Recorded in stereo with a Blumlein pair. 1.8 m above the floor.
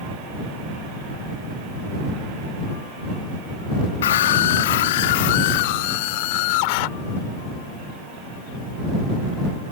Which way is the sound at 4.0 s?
60° left.